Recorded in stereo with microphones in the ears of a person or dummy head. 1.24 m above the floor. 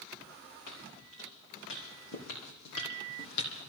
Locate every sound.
0.7 s footsteps: 65° left (ahead or behind), 6 m